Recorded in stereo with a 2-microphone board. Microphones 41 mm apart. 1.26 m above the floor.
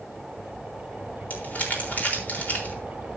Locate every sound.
1.3 s crumpling: 45° left (ahead or behind), 4 m